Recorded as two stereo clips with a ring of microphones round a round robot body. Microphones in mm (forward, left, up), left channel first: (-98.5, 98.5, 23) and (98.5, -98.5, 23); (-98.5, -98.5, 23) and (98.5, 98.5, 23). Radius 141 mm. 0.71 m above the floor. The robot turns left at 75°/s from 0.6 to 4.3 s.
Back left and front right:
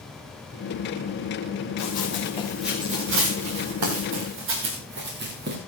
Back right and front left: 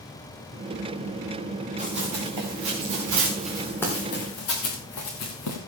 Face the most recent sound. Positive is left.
turn(degrees=-105)